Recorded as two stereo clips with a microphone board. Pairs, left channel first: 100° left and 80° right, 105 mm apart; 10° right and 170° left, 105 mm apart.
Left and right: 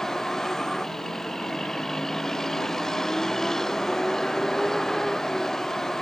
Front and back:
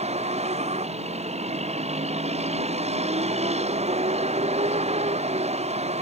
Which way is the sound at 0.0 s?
170° right.